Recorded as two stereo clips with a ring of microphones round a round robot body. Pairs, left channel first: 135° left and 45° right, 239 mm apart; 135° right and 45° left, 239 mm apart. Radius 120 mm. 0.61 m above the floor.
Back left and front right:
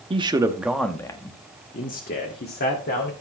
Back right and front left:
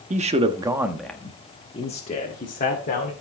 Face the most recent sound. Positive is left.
turn(degrees=175)